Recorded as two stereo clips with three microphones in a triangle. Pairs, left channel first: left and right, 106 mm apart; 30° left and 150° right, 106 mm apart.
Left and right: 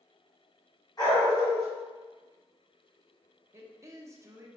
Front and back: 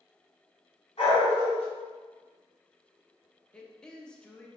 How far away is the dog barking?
About 1.8 m.